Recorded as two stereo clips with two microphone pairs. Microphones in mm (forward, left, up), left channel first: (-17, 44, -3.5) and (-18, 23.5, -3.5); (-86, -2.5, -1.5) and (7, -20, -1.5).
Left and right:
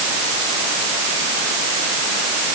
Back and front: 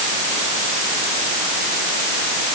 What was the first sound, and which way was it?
Only background noise.